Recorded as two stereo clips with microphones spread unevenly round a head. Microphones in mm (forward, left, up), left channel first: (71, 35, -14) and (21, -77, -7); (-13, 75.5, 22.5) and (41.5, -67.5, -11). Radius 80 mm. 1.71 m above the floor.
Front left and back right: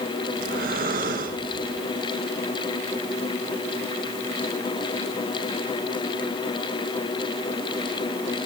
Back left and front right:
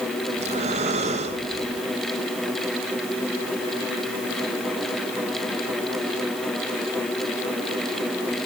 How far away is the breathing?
About 2.5 m.